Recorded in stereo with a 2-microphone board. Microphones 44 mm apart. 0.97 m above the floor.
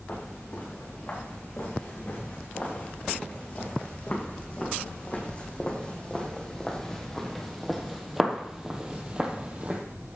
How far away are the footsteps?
About 5 m.